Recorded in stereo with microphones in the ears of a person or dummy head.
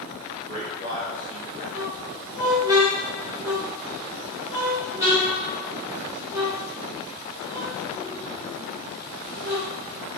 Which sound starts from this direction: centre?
A squeak, at 1.7 s.